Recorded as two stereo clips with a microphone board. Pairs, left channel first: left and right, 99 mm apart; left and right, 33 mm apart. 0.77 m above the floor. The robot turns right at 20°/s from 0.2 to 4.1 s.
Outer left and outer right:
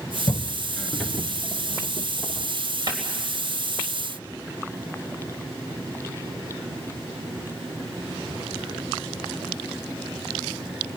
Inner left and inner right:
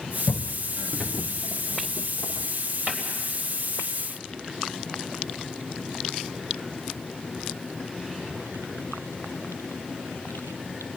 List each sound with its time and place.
0.3 s footsteps: 40° left (ahead or behind), 0.9 m; by 2.5 s 65° right (ahead or behind), 1.9 m
2.9 s a cupboard door: 45° right (ahead or behind), 3.5 m; by 3.0 s 40° right (ahead or behind), 3.5 m